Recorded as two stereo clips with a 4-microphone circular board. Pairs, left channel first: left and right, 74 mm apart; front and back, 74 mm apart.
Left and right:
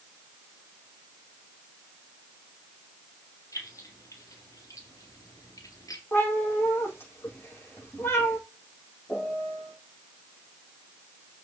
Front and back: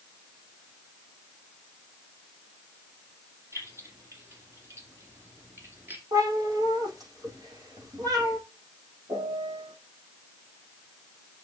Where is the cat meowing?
155° left, 5.5 m.